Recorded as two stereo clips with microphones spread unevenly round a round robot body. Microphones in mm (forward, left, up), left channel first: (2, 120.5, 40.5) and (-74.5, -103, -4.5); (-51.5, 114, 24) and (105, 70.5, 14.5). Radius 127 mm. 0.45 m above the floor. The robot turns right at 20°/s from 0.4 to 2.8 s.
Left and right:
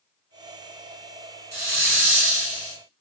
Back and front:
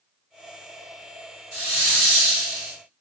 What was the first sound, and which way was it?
A hiss, 70° right.